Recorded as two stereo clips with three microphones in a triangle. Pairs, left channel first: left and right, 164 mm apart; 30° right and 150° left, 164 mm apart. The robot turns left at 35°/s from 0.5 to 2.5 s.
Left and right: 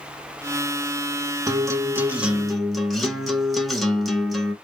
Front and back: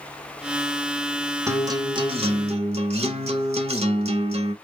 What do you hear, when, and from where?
1.5 s a guitar: 145° right, 0.6 m; by 4.5 s straight behind, 0.6 m